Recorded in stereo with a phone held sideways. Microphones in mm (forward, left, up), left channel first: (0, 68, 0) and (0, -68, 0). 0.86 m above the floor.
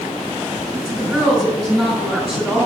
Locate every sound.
0.7 s a woman speaking: centre (ahead or behind), 5.5 m